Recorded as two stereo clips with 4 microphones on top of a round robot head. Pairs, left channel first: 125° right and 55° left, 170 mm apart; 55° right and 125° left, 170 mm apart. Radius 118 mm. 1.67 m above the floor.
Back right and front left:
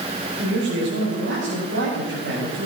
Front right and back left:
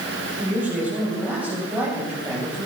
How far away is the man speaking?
About 9.5 m.